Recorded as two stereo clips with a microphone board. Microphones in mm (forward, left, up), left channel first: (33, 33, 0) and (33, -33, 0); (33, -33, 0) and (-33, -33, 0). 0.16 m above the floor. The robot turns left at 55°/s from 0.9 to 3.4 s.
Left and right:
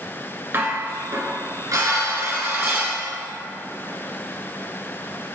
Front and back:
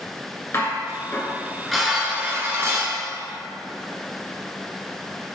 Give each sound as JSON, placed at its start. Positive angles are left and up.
{"t": 0.5, "sound": "dishes clattering", "azimuth_deg": -40, "distance_m": 1.7}